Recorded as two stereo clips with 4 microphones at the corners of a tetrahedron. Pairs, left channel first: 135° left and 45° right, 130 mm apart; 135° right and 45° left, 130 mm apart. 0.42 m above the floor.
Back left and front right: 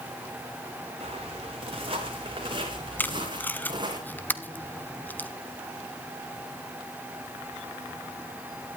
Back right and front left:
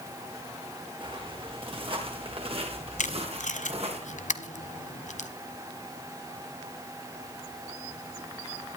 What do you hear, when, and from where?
1.0 s footsteps: 5° right, 6 m; by 4.0 s 10° left, 7 m
3.0 s tape being pulled: 150° right, 1.0 m